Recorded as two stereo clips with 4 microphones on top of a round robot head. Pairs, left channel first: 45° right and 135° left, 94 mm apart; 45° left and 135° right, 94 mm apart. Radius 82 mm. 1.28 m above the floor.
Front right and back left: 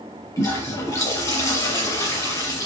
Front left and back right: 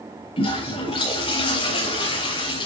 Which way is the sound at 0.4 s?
15° left.